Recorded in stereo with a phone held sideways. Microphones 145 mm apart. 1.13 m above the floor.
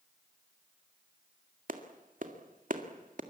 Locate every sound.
1.7 s a clap: 65° right (ahead or behind), 2.0 m